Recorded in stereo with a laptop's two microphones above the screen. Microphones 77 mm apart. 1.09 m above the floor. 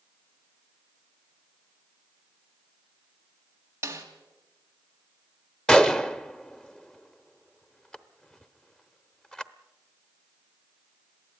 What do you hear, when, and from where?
3.8 s a snare drum: 30° right (ahead or behind), 2 m
5.7 s a gunshot: 10° left (ahead or behind), 0.8 m